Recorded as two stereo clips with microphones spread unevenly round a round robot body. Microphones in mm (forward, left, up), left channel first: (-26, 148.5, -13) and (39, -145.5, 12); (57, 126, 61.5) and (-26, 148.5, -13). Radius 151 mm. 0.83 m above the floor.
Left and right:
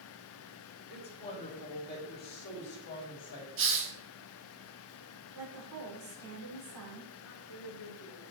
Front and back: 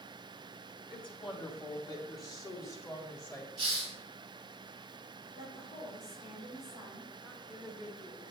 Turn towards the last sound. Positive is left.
turn(degrees=70)